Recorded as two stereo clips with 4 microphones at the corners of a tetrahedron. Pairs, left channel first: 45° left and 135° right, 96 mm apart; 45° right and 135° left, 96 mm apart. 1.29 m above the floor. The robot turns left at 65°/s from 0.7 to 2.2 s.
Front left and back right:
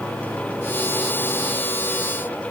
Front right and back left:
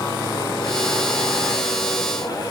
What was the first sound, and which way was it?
Only background noise.